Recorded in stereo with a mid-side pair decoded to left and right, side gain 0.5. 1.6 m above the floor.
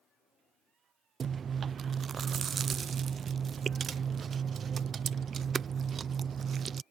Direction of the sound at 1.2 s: 45° right.